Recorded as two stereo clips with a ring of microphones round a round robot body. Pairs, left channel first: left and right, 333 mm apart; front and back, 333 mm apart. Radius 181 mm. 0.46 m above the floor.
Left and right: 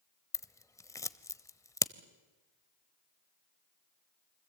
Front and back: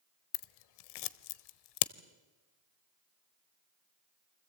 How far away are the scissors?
About 0.8 m.